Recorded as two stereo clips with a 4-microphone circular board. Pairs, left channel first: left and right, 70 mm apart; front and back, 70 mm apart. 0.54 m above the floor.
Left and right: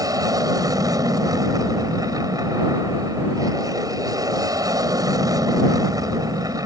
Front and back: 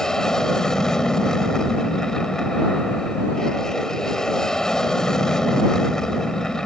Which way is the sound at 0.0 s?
80° right.